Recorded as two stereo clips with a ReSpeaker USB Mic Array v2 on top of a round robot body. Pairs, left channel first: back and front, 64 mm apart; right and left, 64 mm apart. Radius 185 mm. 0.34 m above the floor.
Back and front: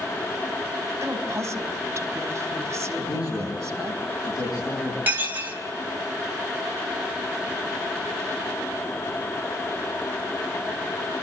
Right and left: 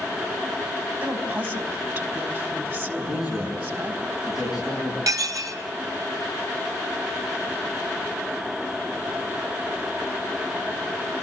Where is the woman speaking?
45° left, 3 m.